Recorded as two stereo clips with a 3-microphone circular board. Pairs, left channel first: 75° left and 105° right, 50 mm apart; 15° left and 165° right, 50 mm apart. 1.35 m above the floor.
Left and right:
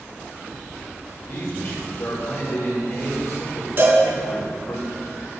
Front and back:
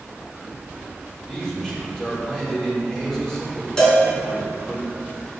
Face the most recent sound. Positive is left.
turn(degrees=-60)